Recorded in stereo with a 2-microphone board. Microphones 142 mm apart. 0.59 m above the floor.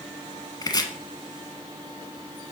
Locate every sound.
0.6 s chopping: 30° left (ahead or behind), 1.0 m